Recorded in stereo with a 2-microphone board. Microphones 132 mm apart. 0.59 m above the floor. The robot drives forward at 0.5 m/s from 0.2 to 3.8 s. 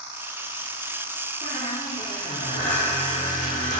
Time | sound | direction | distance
1.4 | a squeak | 80° left | 7 m